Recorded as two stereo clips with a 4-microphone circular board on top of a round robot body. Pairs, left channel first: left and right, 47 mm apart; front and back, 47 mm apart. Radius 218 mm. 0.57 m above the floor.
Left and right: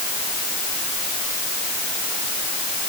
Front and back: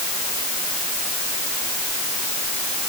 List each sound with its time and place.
Only background noise.